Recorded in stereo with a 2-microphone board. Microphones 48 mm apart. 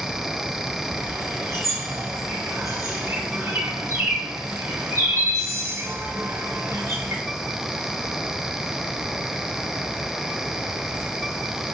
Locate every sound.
0.9 s a bird: 80° right, 3 m